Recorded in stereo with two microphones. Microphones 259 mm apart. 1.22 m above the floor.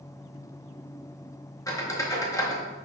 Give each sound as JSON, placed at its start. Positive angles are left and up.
{"t": 1.7, "sound": "a squeak", "side_deg": 15, "distance_m": 0.7}